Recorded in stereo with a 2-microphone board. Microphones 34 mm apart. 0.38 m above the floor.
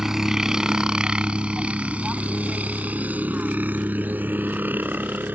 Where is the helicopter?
15° right (ahead or behind); by 5.4 s 70° right (ahead or behind).